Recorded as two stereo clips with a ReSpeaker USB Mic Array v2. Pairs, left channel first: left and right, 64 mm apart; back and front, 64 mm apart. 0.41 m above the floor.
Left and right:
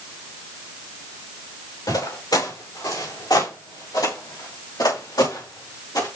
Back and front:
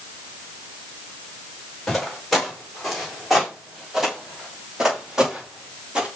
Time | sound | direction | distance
1.9 | footsteps | 95° left | 6.5 m